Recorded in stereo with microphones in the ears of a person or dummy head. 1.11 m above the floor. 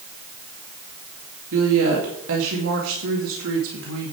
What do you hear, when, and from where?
1.5 s a woman speaking: 75° right (ahead or behind), 2 m